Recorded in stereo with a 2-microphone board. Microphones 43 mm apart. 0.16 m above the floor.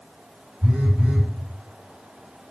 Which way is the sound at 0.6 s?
25° right (ahead or behind).